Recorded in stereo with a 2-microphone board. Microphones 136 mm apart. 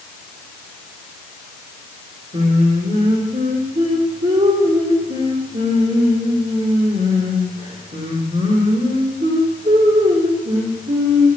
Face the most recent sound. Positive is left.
turn(degrees=-85)